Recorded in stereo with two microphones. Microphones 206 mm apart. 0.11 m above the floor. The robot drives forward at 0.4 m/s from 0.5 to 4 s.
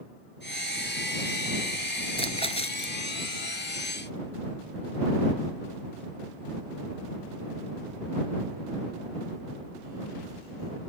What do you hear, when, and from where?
2.2 s a splash: 30° left (ahead or behind)